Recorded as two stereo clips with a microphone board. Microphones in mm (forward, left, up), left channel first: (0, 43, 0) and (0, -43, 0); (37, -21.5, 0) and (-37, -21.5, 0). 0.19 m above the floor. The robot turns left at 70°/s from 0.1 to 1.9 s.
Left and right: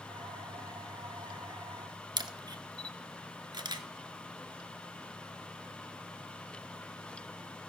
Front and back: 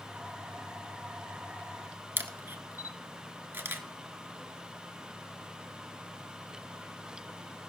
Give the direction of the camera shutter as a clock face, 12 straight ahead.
4 o'clock.